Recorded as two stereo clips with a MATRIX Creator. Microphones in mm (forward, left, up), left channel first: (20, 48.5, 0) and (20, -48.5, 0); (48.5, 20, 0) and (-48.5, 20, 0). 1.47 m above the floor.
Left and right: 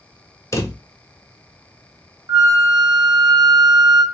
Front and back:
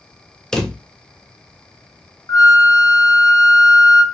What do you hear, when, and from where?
0.5 s a drawer: 80° left, 0.6 m
2.3 s a flute: 45° right, 0.6 m